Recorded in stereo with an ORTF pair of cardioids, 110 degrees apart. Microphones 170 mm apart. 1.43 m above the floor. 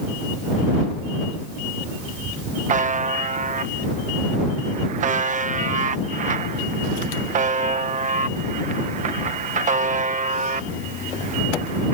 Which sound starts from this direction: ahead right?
A buzzer, at 2.7 s.